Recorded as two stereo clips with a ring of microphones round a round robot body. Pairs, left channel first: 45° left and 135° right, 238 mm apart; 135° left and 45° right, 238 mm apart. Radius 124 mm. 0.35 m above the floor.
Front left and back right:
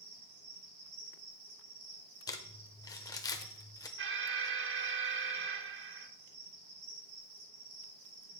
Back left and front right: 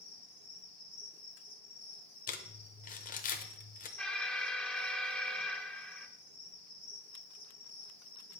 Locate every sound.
0.0 s an insect: 145° right, 5.5 m
2.3 s crumpling: 110° left, 0.9 m
4.0 s an alarm: 140° right, 0.8 m